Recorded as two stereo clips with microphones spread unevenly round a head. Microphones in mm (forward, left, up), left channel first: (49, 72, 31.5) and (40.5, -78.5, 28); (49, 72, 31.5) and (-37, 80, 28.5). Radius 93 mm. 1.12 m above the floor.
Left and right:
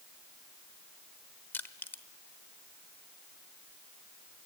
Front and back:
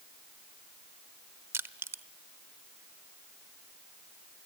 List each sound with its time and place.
1.5 s crushing: 155° left, 0.9 m